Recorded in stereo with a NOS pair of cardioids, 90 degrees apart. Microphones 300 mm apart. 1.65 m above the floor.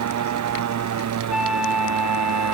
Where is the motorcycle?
65° right; by 2.5 s 60° right.